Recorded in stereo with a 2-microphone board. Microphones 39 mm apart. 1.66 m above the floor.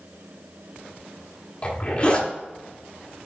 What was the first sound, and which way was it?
A zipper, 35° left (ahead or behind).